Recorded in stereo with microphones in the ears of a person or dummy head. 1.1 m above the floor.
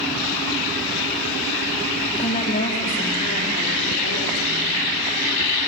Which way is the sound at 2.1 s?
30° left (ahead or behind).